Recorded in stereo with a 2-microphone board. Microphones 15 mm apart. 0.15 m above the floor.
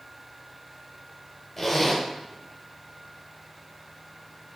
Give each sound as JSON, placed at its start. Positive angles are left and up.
{"t": 1.6, "sound": "a zipper", "side_deg": 10, "distance_m": 1.3}